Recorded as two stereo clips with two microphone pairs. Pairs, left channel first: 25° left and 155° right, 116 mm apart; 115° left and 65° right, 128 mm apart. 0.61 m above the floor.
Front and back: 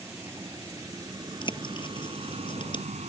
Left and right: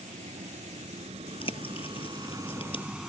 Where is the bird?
70° left.